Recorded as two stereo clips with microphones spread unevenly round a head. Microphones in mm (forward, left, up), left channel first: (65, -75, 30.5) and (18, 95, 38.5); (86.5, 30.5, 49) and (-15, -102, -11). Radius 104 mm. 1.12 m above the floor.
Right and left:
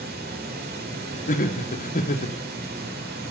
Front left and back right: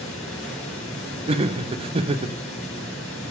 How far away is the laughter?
About 1.0 m.